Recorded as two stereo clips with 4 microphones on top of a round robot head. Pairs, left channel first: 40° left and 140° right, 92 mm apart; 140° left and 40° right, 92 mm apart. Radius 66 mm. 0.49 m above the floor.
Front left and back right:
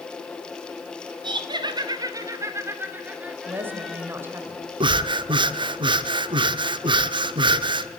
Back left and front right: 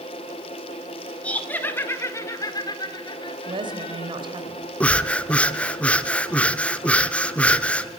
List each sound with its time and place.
1.2 s laughter: 150° right, 2 m; by 4.1 s 130° left, 2.5 m
3.5 s a woman speaking: 75° right, 2.5 m
4.8 s breathing: 145° right, 0.8 m